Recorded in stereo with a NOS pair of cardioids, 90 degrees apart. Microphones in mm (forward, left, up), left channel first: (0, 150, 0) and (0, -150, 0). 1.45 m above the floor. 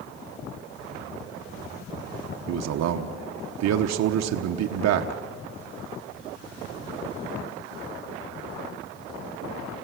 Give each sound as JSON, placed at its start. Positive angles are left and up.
{"t": 2.5, "sound": "a man speaking", "azimuth_deg": -65, "distance_m": 1.2}